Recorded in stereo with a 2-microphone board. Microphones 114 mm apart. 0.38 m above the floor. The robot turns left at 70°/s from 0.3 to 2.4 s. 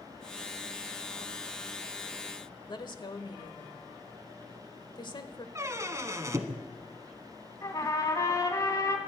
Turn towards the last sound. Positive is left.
turn(degrees=30)  # may be behind; listen again after turning